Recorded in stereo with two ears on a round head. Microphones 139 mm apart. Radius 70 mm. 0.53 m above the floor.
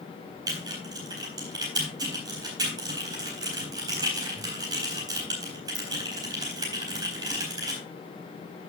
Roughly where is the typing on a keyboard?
Right.